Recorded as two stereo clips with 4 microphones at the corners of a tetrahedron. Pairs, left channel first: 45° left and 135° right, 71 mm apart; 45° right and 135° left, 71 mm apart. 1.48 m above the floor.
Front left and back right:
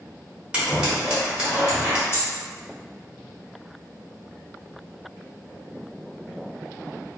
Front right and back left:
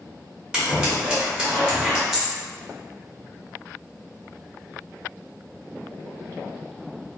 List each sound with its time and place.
0.5 s scissors: 170° right, 1.2 m
2.1 s a dropped coin: 45° left, 1.1 m